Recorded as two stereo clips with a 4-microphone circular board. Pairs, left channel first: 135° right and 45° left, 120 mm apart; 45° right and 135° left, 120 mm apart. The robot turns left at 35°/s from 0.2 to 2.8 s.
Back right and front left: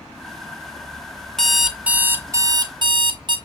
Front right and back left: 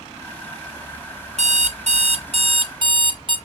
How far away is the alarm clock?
About 0.6 m.